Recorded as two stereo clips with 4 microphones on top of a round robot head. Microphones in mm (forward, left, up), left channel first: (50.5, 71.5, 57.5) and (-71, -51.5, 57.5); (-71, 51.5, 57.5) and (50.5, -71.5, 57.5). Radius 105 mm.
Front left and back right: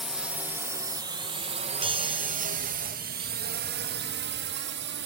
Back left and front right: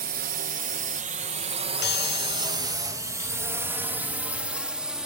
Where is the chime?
165° left.